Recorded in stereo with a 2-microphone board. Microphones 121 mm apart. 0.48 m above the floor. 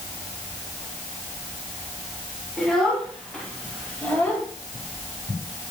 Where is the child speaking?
5° left (ahead or behind), 3.5 m; by 4.5 s 15° left (ahead or behind), 1.8 m.